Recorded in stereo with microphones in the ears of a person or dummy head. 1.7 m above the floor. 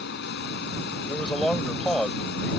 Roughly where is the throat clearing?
No throat clearing in this recording.